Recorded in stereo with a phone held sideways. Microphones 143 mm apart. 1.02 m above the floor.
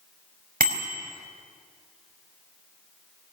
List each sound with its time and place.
0.6 s a bicycle bell: 75° right (ahead or behind), 4.5 m